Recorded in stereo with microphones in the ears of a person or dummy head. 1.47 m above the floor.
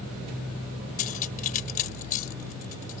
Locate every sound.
1.0 s cutlery clinking: 40° left (ahead or behind)